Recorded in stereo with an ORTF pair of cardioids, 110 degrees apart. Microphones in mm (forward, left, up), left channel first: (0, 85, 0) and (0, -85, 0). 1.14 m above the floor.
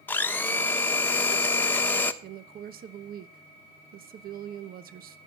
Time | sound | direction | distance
0.1 | a blender | 10° left | 1.2 m
2.2 | a woman speaking | 55° right | 1.0 m